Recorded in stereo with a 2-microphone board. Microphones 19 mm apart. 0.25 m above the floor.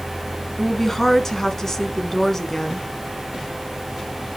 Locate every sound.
0.6 s a woman speaking: 25° left (ahead or behind), 1.8 m